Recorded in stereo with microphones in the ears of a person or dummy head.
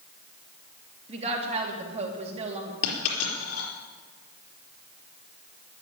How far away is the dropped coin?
About 4 m.